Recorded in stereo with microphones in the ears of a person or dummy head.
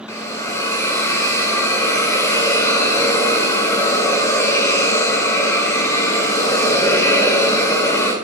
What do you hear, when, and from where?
0.1 s a hiss: 20° left (ahead or behind), 2.5 m